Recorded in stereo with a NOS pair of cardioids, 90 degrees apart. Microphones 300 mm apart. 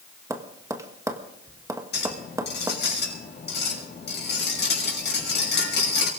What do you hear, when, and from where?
0.3 s tapping: 10° right, 1.6 m
1.9 s a clink: 40° left, 6 m